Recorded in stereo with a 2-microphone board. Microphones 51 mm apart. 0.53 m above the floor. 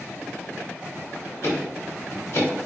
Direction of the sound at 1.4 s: 60° left (ahead or behind).